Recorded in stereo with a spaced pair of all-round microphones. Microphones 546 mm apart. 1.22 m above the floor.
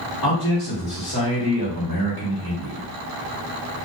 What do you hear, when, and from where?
0.2 s a man speaking: 40° left (ahead or behind), 1.1 m